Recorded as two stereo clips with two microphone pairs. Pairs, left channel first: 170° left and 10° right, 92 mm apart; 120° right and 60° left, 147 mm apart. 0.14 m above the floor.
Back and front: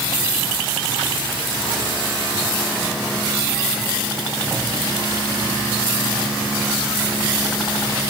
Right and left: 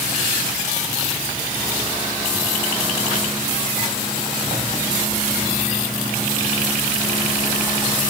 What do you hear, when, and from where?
Only background noise.